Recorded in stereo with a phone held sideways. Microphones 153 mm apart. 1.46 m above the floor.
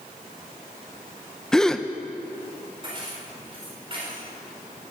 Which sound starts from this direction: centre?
A gasp, at 1.5 s.